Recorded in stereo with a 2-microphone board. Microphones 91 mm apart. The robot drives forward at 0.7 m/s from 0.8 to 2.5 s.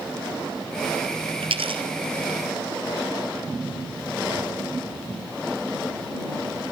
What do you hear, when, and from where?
1.4 s a dropped coin: 80° right, 1.8 m; by 1.8 s 75° right (ahead or behind), 1.9 m